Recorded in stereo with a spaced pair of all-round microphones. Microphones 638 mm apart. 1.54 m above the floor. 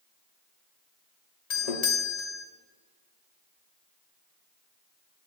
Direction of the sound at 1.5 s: 75° left (ahead or behind).